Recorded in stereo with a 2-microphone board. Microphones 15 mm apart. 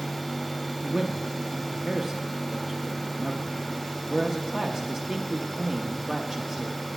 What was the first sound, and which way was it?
A man speaking, 5° right (ahead or behind).